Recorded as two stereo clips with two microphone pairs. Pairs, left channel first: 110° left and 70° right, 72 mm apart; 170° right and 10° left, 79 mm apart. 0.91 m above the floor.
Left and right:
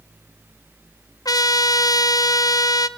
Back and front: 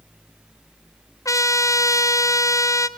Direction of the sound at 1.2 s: 140° left.